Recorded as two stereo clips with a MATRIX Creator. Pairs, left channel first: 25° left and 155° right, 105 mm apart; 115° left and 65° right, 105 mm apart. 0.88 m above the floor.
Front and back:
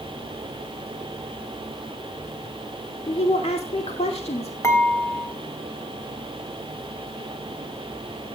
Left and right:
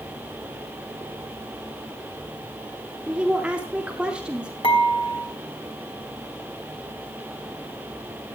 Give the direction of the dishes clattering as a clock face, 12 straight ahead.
9 o'clock.